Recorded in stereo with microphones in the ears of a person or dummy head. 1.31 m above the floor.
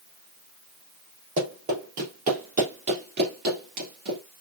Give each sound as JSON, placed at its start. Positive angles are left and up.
{"t": 1.4, "sound": "running footsteps", "side_deg": -40, "distance_m": 3.0}